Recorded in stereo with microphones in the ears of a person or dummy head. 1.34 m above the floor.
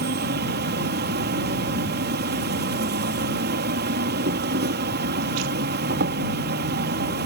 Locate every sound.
0.0 s an insect: 55° right (ahead or behind)